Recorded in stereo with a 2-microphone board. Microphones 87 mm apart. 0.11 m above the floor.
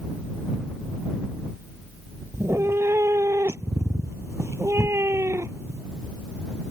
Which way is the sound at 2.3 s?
35° right (ahead or behind).